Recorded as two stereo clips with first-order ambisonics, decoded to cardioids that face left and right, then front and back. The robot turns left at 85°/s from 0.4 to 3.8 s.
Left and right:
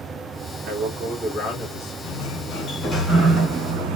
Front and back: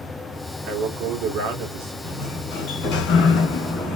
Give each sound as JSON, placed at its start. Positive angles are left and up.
{"t": 0.6, "sound": "a man speaking", "azimuth_deg": -125, "distance_m": 1.6}
{"t": 2.0, "sound": "a sliding door", "azimuth_deg": 85, "distance_m": 2.0}